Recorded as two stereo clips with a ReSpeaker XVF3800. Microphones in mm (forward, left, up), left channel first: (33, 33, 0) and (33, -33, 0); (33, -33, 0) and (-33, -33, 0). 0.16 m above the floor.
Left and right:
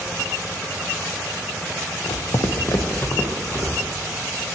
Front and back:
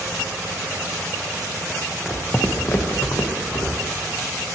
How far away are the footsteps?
About 0.7 m.